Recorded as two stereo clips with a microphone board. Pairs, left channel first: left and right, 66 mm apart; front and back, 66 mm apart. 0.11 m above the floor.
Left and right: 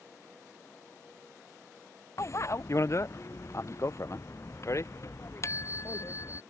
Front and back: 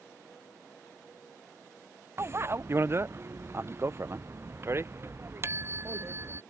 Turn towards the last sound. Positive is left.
turn(degrees=130)